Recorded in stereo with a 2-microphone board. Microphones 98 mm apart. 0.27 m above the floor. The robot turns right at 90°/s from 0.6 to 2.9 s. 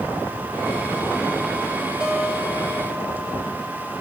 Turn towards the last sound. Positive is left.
turn(degrees=-90)